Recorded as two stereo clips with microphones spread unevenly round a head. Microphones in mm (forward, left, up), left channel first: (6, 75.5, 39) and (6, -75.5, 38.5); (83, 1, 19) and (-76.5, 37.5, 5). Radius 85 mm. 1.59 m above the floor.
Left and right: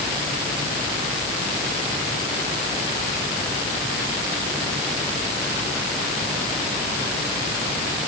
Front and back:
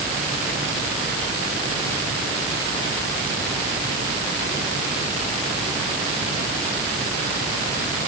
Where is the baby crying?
I don't hear a baby crying.